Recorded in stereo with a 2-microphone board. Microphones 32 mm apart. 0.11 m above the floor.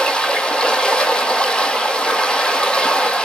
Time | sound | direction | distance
0.0 | running water | 25° left (ahead or behind) | 0.9 m